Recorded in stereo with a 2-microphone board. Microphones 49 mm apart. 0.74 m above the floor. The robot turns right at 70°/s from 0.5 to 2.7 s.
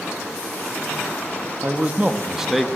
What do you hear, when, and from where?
1.6 s a man speaking: 70° right, 0.8 m; by 2.7 s straight ahead, 0.8 m